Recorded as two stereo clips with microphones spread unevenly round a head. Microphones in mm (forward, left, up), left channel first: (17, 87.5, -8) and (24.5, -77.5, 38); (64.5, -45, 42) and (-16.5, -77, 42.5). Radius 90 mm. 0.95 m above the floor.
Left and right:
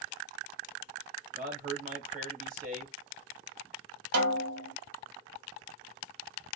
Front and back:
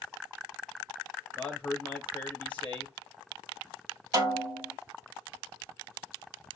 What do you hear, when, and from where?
1.4 s a man speaking: 40° right, 0.9 m
4.1 s a snare drum: 110° right, 1.2 m